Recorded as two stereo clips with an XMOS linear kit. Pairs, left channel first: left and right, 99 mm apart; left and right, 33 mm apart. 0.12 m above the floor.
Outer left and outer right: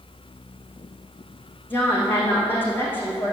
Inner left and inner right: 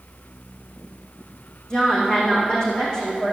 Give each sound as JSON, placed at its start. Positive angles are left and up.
{"t": 1.7, "sound": "a woman speaking", "side_deg": 20, "distance_m": 5.5}